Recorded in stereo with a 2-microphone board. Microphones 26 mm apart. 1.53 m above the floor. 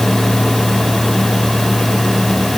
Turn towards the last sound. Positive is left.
No sound to turn to.